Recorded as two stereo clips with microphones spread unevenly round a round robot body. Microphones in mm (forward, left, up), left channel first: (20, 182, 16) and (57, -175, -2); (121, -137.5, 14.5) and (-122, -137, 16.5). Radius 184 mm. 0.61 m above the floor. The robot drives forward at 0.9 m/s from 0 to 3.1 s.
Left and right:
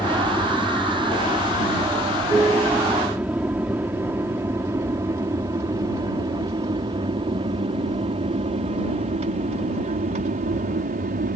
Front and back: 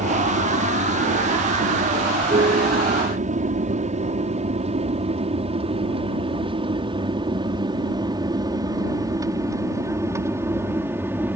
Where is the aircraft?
175° right; by 11.4 s 110° right.